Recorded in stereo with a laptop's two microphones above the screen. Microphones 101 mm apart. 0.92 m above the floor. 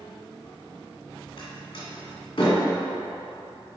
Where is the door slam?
55° left (ahead or behind), 2 m.